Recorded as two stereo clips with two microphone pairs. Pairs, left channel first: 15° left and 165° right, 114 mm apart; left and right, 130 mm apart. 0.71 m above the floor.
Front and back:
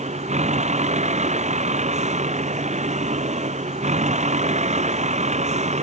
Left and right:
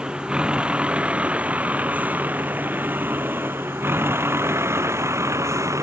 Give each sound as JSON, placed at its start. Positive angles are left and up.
{"t": 0.0, "sound": "a vehicle", "azimuth_deg": -170}